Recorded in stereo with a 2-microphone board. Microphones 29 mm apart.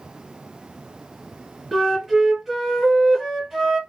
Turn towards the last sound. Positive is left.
turn(degrees=-10)  # may be behind; listen again after turning